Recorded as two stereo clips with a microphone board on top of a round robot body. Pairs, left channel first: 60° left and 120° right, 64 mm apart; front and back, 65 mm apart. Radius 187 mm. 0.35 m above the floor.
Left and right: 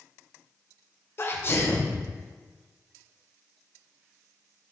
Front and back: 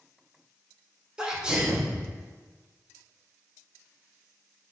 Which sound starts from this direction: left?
A sneeze, at 1.2 s.